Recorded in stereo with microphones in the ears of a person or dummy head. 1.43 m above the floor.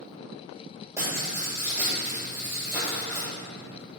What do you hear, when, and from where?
1.0 s writing: 15° right (ahead or behind), 3 m